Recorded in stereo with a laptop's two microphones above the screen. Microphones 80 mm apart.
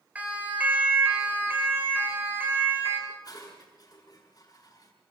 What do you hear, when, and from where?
0.1 s a siren: 20° right (ahead or behind), 7 m; by 3.0 s 30° right (ahead or behind), 8.5 m
3.1 s dishes clattering: 50° left (ahead or behind), 8 m